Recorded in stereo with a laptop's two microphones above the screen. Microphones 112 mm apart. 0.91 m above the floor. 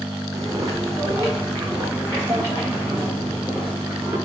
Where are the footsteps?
35° right (ahead or behind), 2.0 m; by 4.2 s 20° right (ahead or behind), 6 m.